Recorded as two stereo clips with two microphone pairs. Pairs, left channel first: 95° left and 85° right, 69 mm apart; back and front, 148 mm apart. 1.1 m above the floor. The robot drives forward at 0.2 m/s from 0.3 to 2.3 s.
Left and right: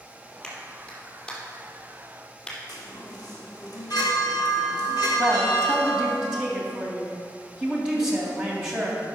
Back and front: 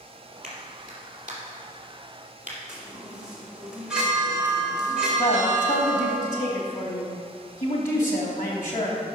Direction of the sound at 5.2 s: 165° right.